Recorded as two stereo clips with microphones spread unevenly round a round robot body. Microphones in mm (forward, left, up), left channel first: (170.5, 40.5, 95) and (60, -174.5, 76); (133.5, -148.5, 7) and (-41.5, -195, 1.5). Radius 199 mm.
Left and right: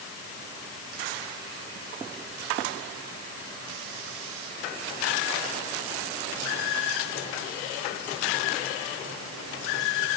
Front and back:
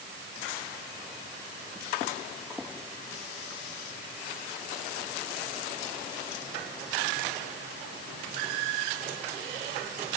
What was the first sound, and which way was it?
Only background noise.